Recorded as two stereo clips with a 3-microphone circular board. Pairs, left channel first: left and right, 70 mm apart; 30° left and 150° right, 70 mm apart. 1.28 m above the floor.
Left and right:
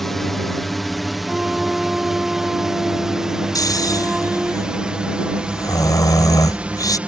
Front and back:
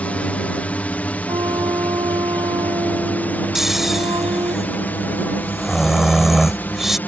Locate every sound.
0.0 s a drone: 10° left; by 7.1 s 25° right
1.3 s a flute: 170° right
3.5 s snoring: 125° left